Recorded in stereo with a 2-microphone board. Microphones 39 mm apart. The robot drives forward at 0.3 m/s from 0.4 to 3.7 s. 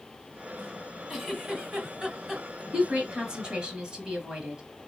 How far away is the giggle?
About 1.6 m.